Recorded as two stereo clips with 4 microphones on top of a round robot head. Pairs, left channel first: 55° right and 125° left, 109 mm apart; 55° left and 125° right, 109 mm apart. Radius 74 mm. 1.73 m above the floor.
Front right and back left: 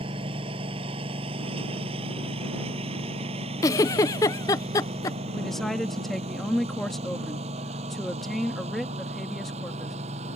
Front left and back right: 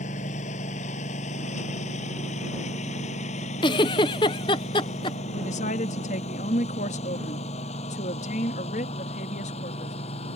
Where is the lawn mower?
80° left; by 10.4 s 90° left.